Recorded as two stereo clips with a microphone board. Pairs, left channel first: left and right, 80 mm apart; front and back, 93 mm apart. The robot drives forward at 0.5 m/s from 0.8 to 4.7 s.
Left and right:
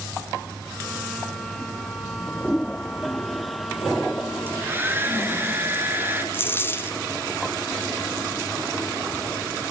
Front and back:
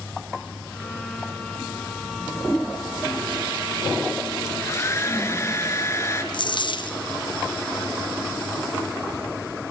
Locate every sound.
4.5 s a hair dryer: 40° right, 2.5 m
6.3 s a dropped coin: 30° left, 1.4 m